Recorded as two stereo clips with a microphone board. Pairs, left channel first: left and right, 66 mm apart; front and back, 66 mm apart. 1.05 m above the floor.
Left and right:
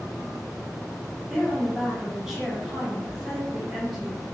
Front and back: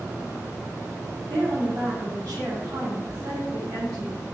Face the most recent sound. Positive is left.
turn(degrees=-170)